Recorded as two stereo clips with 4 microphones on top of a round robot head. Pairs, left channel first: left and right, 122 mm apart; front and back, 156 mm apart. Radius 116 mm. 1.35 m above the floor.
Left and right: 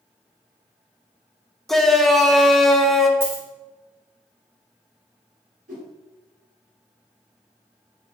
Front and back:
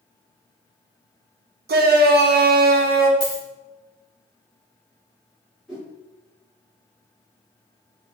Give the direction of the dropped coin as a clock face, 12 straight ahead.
1 o'clock.